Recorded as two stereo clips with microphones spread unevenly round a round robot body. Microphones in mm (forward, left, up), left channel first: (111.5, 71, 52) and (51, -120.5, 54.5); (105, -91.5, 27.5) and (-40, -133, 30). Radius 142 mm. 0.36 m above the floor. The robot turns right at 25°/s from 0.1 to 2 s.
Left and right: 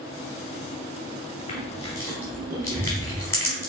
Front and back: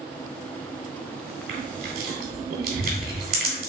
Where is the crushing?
140° left, 1.0 m; by 3.7 s 150° left, 1.0 m.